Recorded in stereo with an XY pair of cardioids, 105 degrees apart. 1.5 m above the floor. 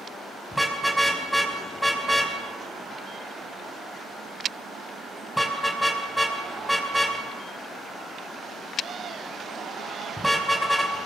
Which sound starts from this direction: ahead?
A car horn, at 0.5 s.